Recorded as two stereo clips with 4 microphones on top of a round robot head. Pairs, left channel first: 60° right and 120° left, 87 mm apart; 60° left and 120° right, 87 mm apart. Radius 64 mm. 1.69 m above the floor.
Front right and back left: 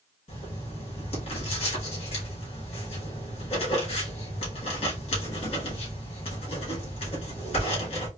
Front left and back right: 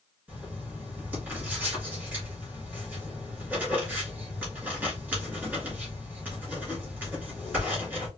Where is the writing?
50° right, 2.5 m.